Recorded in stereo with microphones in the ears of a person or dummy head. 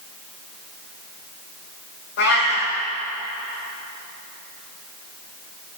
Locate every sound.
2.2 s a cat meowing: 60° left (ahead or behind), 2.5 m